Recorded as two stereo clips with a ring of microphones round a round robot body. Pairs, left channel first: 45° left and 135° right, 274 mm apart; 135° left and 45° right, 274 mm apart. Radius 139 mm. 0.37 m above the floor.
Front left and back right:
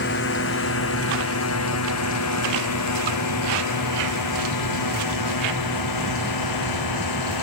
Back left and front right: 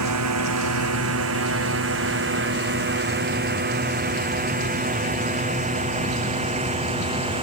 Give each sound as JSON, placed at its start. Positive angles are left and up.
{"t": 0.0, "sound": "a drone", "azimuth_deg": -10}